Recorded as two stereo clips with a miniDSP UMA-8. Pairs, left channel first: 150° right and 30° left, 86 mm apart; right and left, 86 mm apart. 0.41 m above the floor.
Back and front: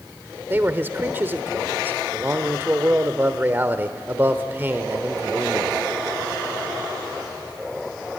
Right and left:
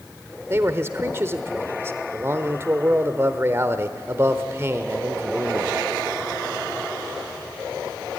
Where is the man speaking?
70° left, 1.0 m.